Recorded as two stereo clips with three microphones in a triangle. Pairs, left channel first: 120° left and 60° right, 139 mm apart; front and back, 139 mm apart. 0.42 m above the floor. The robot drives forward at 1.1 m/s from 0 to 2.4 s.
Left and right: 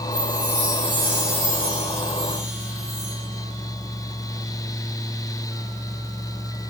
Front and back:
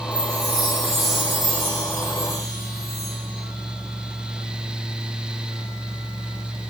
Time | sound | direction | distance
0.1 | a chime | 135° right | 7 m